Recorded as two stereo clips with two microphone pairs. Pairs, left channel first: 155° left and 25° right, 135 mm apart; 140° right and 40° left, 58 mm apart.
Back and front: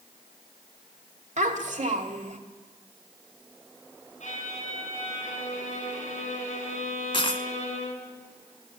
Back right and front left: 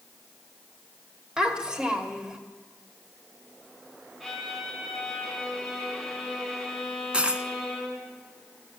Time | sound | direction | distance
1.4 | a child speaking | 30° right | 1.7 m
4.2 | a violin | 125° left | 3.5 m
7.1 | a dropped coin | 105° left | 0.8 m